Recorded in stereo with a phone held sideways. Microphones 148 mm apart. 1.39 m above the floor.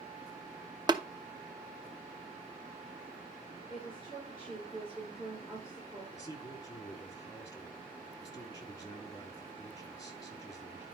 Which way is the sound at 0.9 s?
30° right (ahead or behind).